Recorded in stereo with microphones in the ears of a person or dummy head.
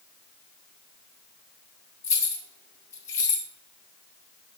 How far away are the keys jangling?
About 0.7 m.